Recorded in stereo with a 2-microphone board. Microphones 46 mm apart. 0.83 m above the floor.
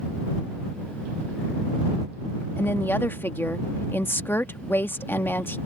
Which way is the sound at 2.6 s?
50° left (ahead or behind).